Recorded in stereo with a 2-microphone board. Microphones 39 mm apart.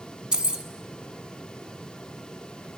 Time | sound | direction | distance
0.3 | keys jangling | 25° right (ahead or behind) | 1.0 m